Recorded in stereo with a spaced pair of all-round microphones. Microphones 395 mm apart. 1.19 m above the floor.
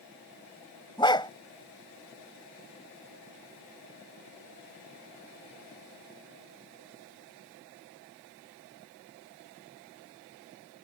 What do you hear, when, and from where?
1.0 s a dog barking: 10° left (ahead or behind)